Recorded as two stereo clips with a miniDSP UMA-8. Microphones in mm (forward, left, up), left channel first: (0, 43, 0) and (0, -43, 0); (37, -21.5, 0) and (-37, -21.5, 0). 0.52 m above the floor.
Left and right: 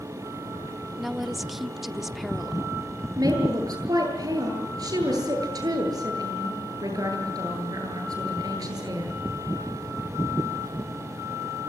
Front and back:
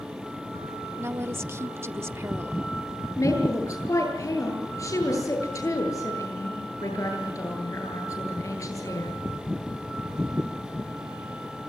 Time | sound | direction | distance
1.0 | a woman speaking | 175° right | 0.7 m
3.2 | a woman speaking | 45° right | 9.5 m